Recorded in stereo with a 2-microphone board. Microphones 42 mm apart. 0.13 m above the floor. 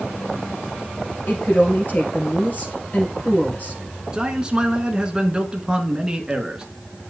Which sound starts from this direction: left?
A woman speaking, at 1.3 s.